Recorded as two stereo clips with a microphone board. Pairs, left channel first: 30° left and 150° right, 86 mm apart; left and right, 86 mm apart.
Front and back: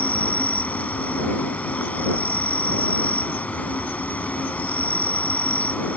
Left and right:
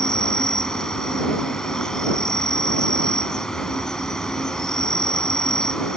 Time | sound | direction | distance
0.0 | an insect | 25° left | ?